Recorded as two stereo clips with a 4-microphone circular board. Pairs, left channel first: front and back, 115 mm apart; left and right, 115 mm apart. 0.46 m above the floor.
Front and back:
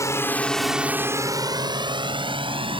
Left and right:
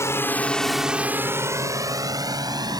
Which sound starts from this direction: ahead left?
A drone, at 0.0 s.